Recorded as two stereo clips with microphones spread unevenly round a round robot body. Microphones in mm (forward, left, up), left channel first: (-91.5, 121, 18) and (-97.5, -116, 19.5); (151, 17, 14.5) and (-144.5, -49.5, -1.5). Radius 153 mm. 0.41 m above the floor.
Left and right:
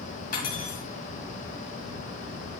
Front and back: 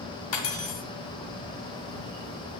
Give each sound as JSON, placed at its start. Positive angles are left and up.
{"t": 0.3, "sound": "cutlery clinking", "azimuth_deg": 30, "distance_m": 1.8}